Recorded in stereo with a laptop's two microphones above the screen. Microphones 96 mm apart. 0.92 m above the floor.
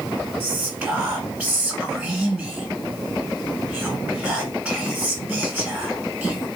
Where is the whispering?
20° right (ahead or behind), 1.7 m.